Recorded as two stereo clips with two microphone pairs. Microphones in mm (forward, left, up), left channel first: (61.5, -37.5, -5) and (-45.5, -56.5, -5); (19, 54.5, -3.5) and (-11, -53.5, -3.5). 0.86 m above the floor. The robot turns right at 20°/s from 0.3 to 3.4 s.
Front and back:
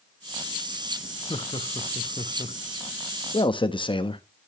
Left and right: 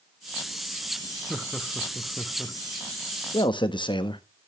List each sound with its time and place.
1.3 s laughter: 20° right, 1.0 m; by 2.6 s 5° left, 1.0 m
3.3 s a man speaking: 35° left, 1.1 m; by 4.2 s 40° left, 1.1 m